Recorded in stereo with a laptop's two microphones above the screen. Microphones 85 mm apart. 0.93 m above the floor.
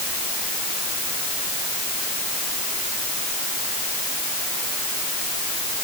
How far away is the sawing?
No sawing in this recording.